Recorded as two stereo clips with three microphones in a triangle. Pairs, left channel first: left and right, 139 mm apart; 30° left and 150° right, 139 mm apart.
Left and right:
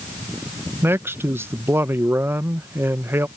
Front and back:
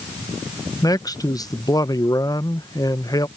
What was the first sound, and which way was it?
A man speaking, 25° right.